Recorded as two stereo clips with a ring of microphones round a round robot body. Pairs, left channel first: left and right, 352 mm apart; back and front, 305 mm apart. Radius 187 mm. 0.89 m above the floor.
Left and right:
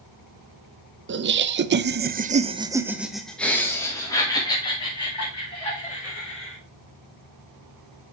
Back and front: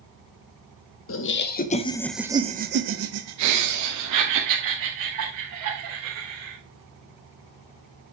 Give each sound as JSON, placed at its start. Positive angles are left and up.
{"t": 1.1, "sound": "laughter", "azimuth_deg": -145, "distance_m": 1.0}